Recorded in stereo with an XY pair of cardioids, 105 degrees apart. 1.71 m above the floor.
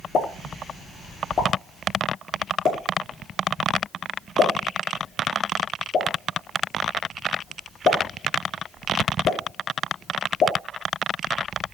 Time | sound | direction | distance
0.1 | a pop | 55° left | 2.5 m